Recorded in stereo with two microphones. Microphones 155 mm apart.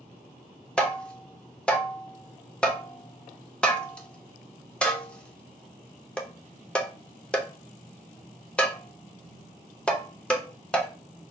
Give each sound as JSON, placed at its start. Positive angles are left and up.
{"t": 0.8, "sound": "tapping", "side_deg": 5, "distance_m": 0.5}